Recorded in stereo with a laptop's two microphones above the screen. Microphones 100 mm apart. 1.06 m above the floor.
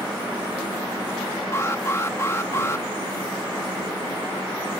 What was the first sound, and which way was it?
An alarm, 25° left (ahead or behind).